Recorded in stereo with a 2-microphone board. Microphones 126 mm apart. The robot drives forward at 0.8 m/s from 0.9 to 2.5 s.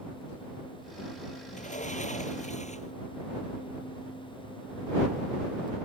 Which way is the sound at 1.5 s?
75° left (ahead or behind).